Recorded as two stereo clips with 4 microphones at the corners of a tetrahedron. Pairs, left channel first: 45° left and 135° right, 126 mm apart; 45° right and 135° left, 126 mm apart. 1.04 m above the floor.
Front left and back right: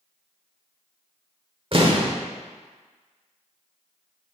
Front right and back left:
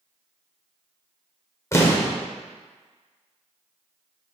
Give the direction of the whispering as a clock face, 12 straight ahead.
I don't hear whispering.